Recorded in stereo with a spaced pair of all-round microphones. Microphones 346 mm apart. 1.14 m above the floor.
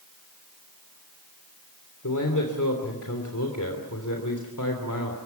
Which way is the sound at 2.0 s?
60° left (ahead or behind).